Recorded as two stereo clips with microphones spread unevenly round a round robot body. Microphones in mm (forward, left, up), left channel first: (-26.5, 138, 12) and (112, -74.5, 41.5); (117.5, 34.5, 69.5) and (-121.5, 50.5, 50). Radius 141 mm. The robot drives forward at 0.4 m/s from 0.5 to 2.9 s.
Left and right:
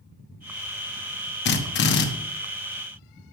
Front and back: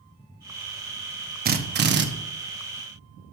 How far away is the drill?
About 1.0 m.